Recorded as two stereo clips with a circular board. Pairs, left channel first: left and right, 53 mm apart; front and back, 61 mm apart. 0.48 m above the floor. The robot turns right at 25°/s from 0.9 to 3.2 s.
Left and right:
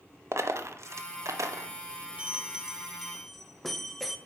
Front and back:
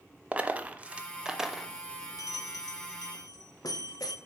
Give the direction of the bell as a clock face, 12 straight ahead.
1 o'clock.